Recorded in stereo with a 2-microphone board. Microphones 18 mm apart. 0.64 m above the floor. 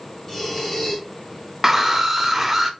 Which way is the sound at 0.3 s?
10° left (ahead or behind).